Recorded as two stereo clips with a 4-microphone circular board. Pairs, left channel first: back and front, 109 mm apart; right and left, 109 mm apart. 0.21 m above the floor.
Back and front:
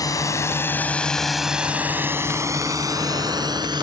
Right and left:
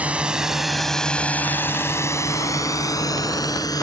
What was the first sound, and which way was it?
A drone, 160° left.